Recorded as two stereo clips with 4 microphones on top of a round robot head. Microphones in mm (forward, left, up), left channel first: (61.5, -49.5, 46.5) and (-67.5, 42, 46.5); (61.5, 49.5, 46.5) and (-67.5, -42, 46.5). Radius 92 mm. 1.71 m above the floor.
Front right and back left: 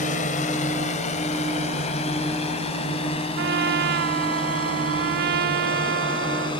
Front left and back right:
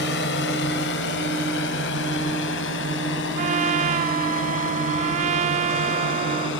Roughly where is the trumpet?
Behind.